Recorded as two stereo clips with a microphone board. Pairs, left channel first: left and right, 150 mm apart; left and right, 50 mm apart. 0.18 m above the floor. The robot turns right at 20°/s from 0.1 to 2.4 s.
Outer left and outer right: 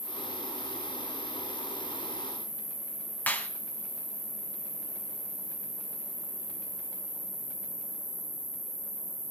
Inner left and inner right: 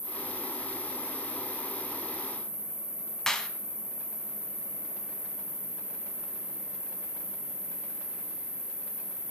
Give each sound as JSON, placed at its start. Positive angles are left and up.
{"t": 0.0, "sound": "an insect", "azimuth_deg": 110, "distance_m": 3.0}
{"t": 3.3, "sound": "a clap", "side_deg": 10, "distance_m": 0.9}